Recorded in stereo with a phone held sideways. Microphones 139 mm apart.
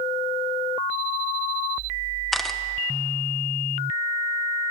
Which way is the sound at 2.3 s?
Centre (ahead or behind).